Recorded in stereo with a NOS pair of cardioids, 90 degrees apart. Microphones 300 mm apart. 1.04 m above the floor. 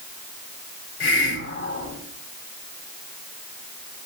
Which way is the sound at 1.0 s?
45° left.